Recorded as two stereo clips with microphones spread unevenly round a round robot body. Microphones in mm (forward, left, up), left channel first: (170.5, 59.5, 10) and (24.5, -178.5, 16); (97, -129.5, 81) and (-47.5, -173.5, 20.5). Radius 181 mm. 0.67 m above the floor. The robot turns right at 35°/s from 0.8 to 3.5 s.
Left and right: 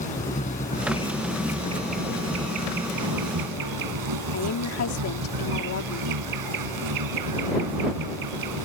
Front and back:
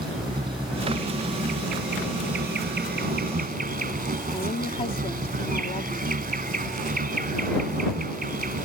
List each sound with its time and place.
0.0 s an insect: 130° left; by 8.7 s 135° right
4.3 s a woman speaking: 85° left